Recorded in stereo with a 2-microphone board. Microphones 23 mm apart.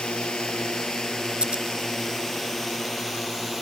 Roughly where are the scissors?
Right.